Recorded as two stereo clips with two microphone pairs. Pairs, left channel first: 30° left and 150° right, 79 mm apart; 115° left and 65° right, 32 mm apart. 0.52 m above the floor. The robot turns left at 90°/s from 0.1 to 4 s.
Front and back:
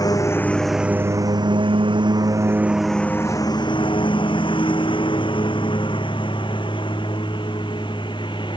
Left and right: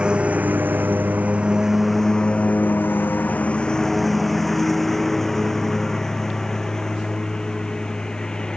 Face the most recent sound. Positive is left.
turn(degrees=50)